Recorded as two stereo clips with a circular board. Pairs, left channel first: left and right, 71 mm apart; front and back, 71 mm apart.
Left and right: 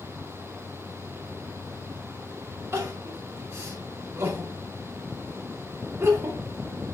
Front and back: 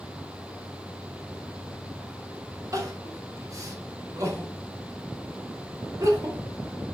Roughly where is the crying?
Behind right.